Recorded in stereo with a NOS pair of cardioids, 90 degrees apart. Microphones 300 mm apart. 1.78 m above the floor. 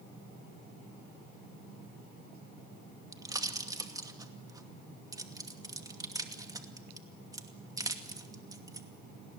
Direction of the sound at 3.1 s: 10° right.